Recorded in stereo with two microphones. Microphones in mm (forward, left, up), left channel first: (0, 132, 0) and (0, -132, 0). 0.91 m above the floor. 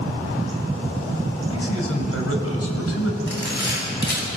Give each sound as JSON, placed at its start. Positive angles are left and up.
{"t": 1.5, "sound": "a man speaking", "side_deg": 60, "distance_m": 4.0}
{"t": 3.3, "sound": "a camera shutter", "side_deg": 40, "distance_m": 8.0}